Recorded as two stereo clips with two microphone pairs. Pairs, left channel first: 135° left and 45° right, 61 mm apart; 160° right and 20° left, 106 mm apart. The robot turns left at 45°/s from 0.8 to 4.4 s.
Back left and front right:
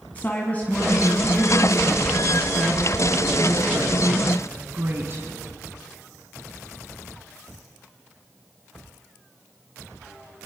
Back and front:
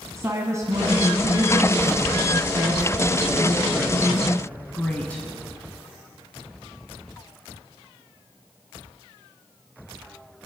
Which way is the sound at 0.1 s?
75° left.